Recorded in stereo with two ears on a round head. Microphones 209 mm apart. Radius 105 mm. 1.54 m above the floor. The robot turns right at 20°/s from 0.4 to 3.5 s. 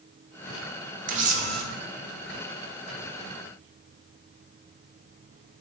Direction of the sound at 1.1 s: 35° right (ahead or behind).